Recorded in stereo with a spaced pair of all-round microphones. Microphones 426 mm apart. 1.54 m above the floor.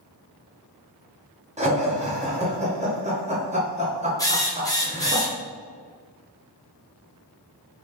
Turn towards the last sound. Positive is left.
turn(degrees=10)  # may be behind; listen again after turning